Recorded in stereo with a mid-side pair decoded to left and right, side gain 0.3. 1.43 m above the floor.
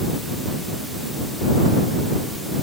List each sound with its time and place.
Only background noise.